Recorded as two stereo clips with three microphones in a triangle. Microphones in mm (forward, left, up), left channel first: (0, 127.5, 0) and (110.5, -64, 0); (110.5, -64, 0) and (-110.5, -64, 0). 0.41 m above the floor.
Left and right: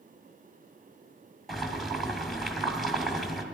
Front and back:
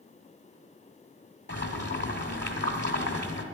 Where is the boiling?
30° left, 1.5 m.